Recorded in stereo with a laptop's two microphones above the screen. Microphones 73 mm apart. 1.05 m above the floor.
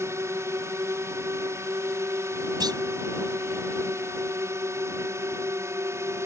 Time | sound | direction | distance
0.0 | a drone | 40° right (ahead or behind) | ?
2.6 | a clunk | 70° right (ahead or behind) | ?